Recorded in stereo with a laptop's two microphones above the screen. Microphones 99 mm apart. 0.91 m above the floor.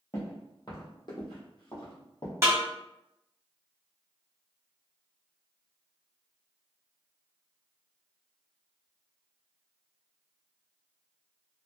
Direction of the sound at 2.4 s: 30° right (ahead or behind).